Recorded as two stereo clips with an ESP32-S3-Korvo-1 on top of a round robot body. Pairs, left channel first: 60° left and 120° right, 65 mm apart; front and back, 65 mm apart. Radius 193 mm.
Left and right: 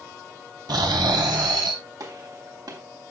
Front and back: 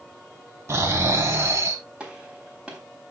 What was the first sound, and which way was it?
Snoring, 130° right.